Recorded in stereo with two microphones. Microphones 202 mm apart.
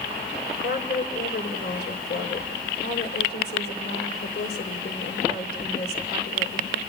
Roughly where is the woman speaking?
Left.